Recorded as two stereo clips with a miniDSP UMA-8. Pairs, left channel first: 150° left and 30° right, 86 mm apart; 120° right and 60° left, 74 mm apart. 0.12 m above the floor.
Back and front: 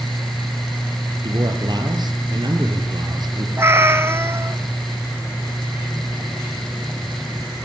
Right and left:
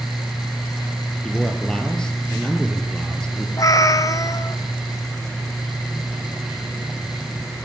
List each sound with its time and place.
1.2 s a man speaking: 40° right, 3 m
3.6 s a cat meowing: 85° right, 0.7 m